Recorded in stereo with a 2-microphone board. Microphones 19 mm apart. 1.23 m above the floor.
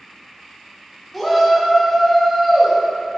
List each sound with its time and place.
1.1 s a shout: centre (ahead or behind), 2 m